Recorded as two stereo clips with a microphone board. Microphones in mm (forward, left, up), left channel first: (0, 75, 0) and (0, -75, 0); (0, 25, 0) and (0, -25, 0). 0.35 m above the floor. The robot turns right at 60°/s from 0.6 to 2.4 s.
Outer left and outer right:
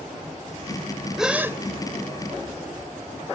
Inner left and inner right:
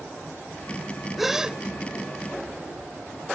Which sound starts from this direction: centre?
A gasp, at 1.2 s.